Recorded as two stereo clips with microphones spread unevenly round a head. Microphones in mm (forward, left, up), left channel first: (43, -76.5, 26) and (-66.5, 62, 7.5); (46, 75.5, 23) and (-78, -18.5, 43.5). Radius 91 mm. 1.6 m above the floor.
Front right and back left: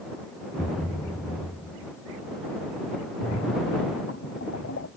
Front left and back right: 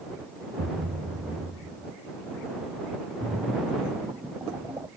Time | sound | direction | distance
0.6 | a thud | 125° right | ?
3.2 | a splash | 70° right | ?